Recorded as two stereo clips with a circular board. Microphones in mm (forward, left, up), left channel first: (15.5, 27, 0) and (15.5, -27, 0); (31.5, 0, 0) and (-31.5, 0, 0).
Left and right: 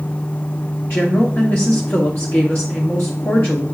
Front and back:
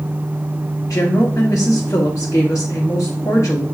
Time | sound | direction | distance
0.9 | a woman speaking | 35° left | 0.9 m